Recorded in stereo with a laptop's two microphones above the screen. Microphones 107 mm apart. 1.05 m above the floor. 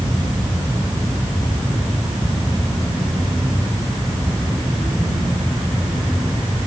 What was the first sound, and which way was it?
Only background noise.